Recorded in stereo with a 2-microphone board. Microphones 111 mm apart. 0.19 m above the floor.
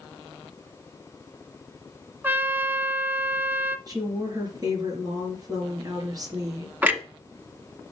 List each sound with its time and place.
2.2 s a trumpet: 20° right (ahead or behind), 0.6 m
3.9 s a woman speaking: 35° right (ahead or behind), 3.5 m
6.8 s a clunk: 15° right (ahead or behind), 0.9 m